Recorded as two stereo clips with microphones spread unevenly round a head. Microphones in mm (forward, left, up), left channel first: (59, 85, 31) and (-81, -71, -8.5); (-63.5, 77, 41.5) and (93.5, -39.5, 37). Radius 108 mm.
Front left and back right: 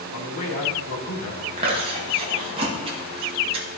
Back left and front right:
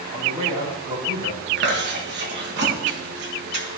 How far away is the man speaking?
About 2.5 m.